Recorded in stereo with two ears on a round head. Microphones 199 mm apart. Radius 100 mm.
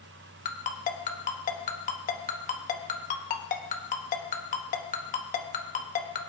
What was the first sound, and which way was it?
A ringtone, 35° left (ahead or behind).